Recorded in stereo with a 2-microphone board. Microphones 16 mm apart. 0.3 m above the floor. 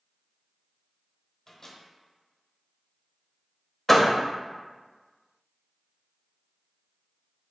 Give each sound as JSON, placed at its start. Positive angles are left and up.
{"t": 1.5, "sound": "a microwave", "side_deg": 25, "distance_m": 1.1}
{"t": 3.9, "sound": "a door slam", "side_deg": 10, "distance_m": 0.6}